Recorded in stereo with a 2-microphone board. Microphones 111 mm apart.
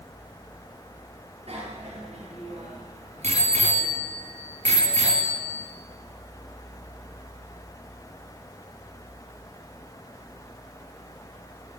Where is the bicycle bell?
65° right (ahead or behind), 4.5 m; by 5.7 s 75° right (ahead or behind), 3.5 m.